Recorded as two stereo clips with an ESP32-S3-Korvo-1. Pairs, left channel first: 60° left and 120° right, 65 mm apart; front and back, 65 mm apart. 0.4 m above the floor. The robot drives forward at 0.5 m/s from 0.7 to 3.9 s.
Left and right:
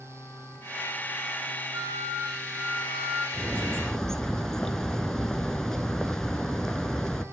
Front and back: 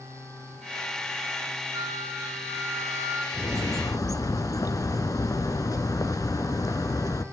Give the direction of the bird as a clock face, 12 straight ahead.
1 o'clock.